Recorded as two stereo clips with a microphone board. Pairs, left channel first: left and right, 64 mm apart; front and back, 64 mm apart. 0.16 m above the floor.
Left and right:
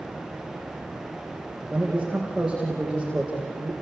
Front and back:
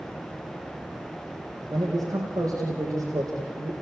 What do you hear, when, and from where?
1.7 s a man speaking: 170° right, 5 m